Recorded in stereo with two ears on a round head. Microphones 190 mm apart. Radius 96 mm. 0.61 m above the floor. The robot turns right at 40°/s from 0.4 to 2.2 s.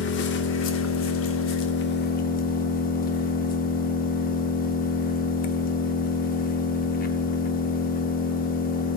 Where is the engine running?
60° left, 0.8 m; by 9.0 s 130° left, 0.8 m.